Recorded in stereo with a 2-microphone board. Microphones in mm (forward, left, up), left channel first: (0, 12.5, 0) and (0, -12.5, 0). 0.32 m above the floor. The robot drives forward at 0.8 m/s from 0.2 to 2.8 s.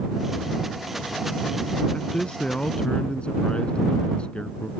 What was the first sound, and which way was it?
A man speaking, 55° left (ahead or behind).